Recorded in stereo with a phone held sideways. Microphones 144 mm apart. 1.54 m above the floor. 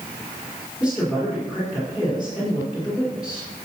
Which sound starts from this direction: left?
A woman speaking, at 0.8 s.